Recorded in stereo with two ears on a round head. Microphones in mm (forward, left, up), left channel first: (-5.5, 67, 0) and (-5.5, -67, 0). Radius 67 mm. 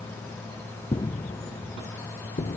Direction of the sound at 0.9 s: 25° left (ahead or behind).